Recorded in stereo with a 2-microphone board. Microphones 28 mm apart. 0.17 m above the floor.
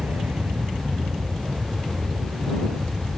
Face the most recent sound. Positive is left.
turn(degrees=-60)  # may be behind; listen again after turning